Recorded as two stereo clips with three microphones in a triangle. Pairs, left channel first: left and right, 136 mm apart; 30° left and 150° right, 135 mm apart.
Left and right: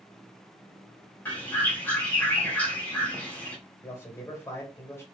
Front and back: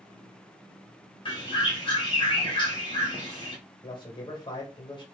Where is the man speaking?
35° left, 1.4 m.